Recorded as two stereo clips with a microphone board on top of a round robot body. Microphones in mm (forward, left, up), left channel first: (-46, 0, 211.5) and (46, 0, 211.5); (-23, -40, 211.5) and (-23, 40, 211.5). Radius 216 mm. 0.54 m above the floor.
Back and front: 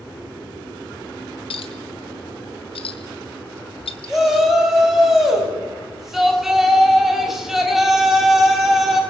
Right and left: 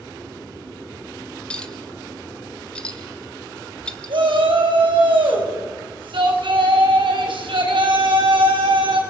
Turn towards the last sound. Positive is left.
turn(degrees=85)